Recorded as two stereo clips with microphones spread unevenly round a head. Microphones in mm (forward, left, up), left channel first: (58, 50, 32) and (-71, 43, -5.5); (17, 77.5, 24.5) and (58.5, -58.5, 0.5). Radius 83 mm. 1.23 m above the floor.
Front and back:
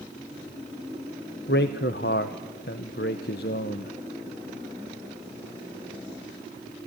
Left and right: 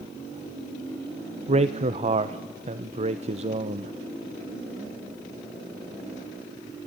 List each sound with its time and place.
1.5 s a man speaking: 30° right, 0.7 m